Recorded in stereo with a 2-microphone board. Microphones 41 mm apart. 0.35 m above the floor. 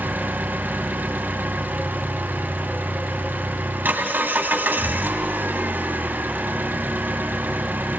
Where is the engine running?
50° right (ahead or behind), 2 m.